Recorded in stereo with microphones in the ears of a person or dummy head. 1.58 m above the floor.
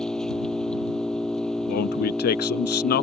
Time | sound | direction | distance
0.0 | an engine running | centre (ahead or behind) | ?
1.7 | a man speaking | 55° left (ahead or behind) | ?